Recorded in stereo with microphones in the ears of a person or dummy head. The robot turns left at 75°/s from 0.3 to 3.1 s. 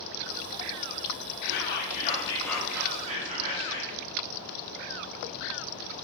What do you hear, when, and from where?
1.4 s whispering: 85° left, 0.6 m; by 4.0 s 40° right, 0.6 m